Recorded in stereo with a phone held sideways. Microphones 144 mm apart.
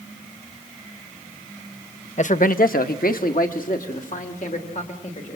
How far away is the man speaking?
About 0.9 m.